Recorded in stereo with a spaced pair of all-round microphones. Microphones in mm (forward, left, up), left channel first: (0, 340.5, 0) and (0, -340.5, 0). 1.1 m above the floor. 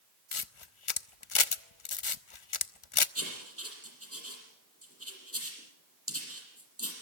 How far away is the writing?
About 6.5 m.